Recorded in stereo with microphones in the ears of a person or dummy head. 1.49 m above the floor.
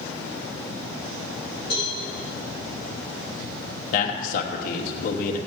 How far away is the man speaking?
About 1.1 m.